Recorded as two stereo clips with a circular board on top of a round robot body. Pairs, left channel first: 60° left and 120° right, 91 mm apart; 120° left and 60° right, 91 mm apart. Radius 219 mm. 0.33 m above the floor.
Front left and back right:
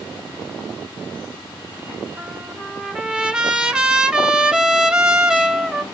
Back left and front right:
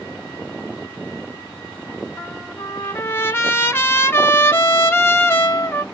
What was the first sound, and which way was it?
A trumpet, 165° left.